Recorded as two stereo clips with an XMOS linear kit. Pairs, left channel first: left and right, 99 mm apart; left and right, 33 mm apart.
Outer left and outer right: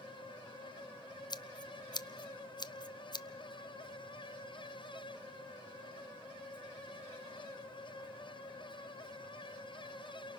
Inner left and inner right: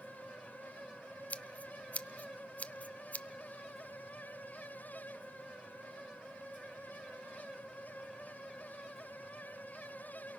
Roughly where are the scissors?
Left.